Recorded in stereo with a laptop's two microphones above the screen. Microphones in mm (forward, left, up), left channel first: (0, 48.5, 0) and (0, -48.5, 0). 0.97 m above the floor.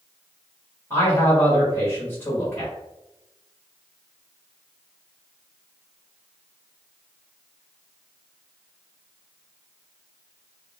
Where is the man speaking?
30° left (ahead or behind), 1.1 m.